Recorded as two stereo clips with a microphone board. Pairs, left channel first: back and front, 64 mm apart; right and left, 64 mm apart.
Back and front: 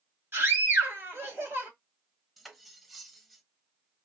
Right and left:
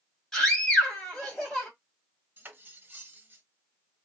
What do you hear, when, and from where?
0.3 s a scream: 5° right, 1.7 m
2.4 s cutlery clinking: 90° left, 0.7 m